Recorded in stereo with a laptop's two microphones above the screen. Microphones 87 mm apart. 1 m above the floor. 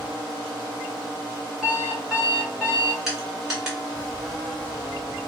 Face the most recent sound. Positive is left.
turn(degrees=-5)  # may be behind; listen again after turning